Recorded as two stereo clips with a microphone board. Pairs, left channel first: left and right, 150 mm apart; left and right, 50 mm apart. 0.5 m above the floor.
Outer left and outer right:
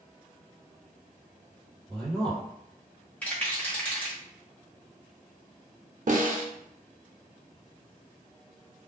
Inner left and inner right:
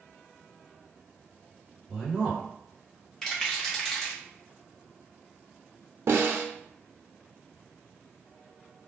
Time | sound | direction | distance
1.9 | a man speaking | centre (ahead or behind) | 1.8 m
3.2 | a rattle | 10° left (ahead or behind) | 0.9 m
6.1 | a snare drum | 60° right (ahead or behind) | 0.5 m